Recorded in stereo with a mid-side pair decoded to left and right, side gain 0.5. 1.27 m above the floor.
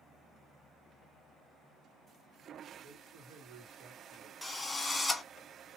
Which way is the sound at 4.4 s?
15° left.